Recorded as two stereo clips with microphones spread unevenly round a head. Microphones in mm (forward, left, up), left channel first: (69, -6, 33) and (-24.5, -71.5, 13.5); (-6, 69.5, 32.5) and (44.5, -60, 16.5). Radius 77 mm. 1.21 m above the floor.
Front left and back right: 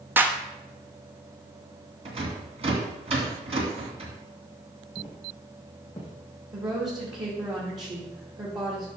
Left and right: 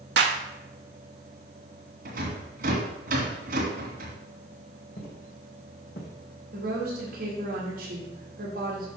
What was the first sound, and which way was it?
A clap, 70° right.